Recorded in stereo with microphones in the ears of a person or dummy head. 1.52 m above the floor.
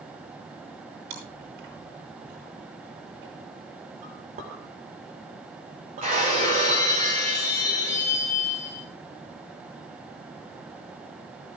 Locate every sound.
1.1 s chewing: 60° right (ahead or behind), 9.5 m
4.0 s a clink: 35° right (ahead or behind), 3.5 m
6.0 s breaking glass: 35° right (ahead or behind), 8 m